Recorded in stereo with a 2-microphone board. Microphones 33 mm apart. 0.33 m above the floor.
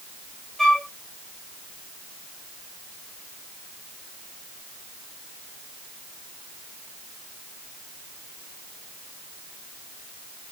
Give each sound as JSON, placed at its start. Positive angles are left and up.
{"t": 0.6, "sound": "a flute", "side_deg": 10, "distance_m": 3.0}